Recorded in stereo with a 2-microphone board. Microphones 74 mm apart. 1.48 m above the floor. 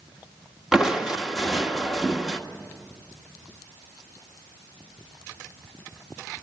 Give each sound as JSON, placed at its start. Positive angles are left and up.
{"t": 0.7, "sound": "crushing", "side_deg": -10, "distance_m": 1.4}